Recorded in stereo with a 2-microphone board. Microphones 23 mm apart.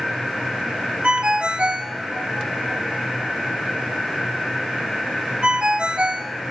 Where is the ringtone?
50° right (ahead or behind), 0.7 m.